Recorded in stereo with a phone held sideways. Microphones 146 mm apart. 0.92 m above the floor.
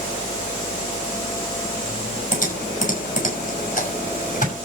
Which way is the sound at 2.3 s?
60° left (ahead or behind).